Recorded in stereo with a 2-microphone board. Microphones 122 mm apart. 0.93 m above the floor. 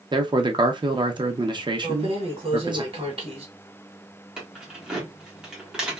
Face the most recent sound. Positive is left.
turn(degrees=-5)  # may be behind; listen again after turning